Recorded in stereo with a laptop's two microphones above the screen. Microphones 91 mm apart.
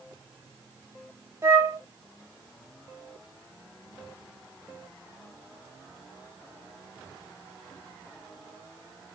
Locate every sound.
1.4 s a flute: 30° right (ahead or behind), 1.2 m